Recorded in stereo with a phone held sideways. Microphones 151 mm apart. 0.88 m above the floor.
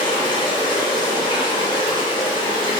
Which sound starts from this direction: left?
Running water, at 0.0 s.